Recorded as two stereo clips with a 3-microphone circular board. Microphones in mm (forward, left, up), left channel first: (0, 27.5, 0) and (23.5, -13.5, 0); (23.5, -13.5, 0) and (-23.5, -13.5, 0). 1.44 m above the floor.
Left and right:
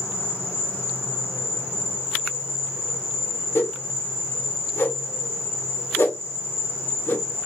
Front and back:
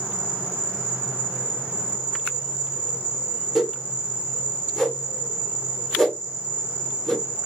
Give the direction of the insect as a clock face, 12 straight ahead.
8 o'clock.